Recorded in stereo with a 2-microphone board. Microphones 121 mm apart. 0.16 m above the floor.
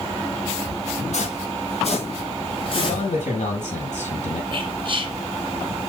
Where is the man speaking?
75° left (ahead or behind), 6 m.